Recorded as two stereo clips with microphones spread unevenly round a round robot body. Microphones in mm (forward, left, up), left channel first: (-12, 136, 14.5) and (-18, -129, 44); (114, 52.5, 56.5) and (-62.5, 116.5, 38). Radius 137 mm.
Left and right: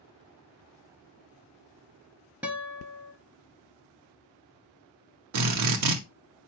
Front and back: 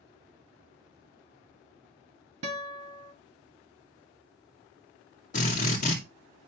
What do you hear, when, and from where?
2.4 s a guitar: 175° right, 1.2 m
5.3 s a drill: 75° right, 2.0 m